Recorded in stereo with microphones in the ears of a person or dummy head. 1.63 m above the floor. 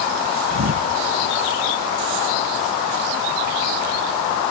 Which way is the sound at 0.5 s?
55° right (ahead or behind).